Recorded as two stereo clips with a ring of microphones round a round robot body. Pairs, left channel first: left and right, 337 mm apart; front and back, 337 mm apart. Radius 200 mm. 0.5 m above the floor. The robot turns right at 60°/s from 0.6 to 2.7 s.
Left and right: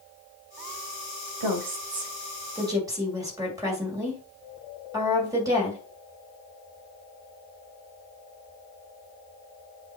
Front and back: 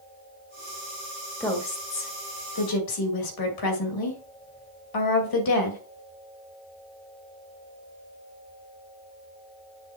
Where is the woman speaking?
85° right, 2.5 m; by 5.8 s 10° right, 2.5 m.